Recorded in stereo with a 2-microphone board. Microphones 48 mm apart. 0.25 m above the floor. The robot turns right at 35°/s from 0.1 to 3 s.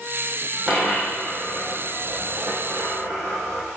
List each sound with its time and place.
0.7 s a dropped coin: 20° right (ahead or behind), 3.5 m; by 3.6 s 80° right, 3.5 m